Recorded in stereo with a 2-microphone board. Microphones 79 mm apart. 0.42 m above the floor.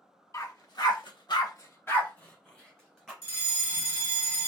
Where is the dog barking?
45° left (ahead or behind), 1.2 m; by 3.1 s 5° left (ahead or behind), 1.9 m.